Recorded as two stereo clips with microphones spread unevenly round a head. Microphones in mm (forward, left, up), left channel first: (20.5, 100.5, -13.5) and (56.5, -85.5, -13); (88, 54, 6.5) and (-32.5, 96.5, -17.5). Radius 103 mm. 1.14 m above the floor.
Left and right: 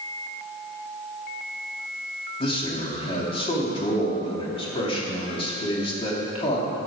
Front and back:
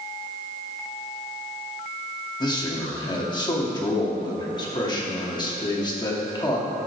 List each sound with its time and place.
2.4 s a man speaking: 40° left, 2 m